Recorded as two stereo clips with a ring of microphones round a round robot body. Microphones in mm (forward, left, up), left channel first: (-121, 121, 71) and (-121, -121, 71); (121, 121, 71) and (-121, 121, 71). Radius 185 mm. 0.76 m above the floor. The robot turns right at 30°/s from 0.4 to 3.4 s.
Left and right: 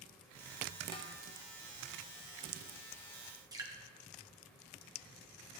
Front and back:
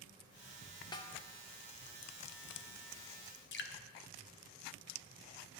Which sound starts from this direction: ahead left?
A snare drum, at 0.9 s.